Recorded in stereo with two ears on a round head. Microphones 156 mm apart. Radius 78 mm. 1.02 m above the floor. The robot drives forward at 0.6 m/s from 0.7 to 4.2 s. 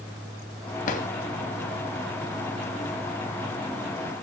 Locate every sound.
0.9 s a drawer: 50° left (ahead or behind), 2 m; by 1.1 s 45° left (ahead or behind), 2 m